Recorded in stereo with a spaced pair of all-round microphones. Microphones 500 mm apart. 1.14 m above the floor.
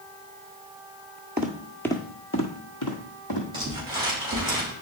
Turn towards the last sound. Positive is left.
turn(degrees=-10)  # may be behind; listen again after turning